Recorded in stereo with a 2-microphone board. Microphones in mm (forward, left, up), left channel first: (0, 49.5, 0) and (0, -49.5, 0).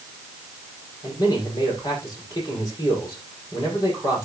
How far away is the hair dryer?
I don't hear a hair dryer.